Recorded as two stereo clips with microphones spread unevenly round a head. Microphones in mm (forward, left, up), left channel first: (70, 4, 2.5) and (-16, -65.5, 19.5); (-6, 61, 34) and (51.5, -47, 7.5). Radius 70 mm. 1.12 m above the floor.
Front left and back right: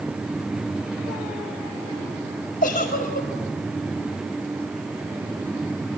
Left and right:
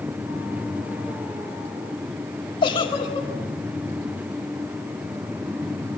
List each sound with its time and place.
2.6 s a giggle: 70° left, 5.5 m